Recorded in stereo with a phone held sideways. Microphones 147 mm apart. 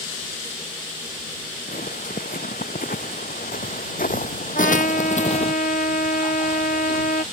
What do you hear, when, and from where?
1.7 s footsteps: 80° left; by 5.5 s 45° left (ahead or behind)
4.5 s a trumpet: 80° left